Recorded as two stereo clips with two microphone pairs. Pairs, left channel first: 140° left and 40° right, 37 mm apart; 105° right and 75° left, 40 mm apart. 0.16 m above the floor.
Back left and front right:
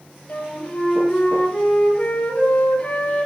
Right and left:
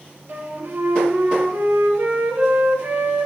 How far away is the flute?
About 3 m.